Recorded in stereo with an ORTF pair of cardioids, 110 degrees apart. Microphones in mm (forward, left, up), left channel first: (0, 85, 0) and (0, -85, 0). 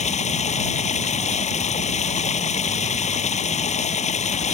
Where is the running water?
40° left.